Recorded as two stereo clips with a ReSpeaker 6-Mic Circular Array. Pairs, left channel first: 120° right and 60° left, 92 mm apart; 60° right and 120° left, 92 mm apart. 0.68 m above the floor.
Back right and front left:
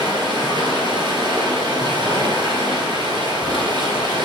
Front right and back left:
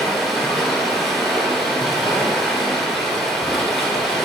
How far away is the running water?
About 2.5 m.